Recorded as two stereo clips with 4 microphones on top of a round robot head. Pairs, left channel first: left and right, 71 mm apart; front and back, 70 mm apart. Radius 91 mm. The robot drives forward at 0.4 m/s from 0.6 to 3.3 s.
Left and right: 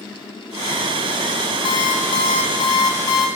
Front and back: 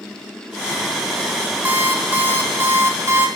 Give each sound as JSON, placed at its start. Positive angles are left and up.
{"t": 1.6, "sound": "an alarm clock", "azimuth_deg": 120, "distance_m": 3.5}